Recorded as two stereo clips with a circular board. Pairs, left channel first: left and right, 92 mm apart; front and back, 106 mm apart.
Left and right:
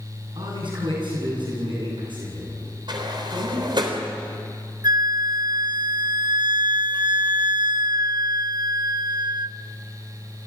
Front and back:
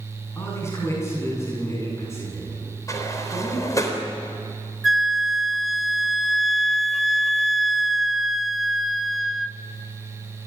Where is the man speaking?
65° right, 8.5 m; by 3.9 s 60° right, 11 m.